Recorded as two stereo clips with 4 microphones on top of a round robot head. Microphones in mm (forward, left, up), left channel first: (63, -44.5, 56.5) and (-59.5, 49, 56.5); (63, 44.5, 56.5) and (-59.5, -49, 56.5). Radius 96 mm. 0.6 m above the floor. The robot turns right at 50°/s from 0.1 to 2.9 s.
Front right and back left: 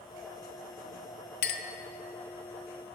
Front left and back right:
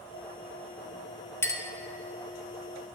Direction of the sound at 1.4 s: 35° right.